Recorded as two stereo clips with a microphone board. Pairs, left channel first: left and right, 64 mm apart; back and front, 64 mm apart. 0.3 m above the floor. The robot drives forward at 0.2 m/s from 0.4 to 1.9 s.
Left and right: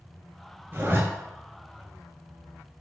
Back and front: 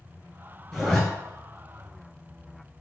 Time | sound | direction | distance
0.7 | a zipper | 110° right | 1.4 m